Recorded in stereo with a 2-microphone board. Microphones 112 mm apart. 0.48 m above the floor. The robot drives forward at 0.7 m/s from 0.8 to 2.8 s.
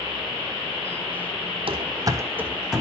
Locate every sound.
1.7 s running footsteps: 60° right (ahead or behind), 1.0 m; by 2.8 s centre (ahead or behind), 1.6 m